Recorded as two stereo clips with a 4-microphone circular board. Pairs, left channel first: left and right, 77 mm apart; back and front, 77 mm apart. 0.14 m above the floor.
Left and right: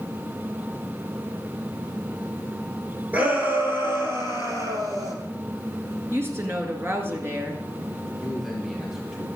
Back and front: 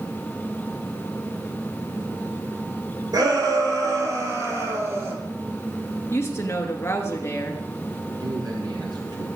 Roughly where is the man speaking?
Ahead.